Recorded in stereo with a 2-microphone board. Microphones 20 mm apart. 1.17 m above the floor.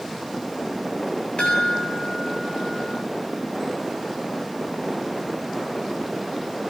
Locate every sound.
1.4 s a chime: 85° left, 8 m